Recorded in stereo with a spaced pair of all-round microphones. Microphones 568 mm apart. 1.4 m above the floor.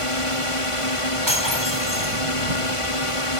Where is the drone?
65° left (ahead or behind).